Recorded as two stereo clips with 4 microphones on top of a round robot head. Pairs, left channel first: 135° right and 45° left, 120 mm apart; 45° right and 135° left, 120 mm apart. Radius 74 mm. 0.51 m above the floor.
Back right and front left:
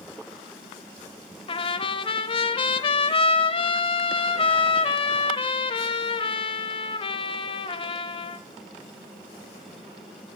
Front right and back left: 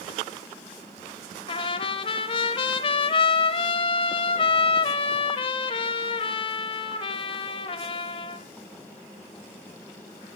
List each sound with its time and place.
1.5 s a trumpet: 90° right, 1.0 m